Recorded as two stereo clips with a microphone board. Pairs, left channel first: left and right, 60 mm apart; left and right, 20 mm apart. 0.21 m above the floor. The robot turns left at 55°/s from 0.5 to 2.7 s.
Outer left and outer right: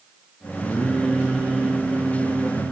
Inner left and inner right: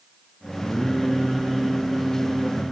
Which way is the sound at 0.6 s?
30° left.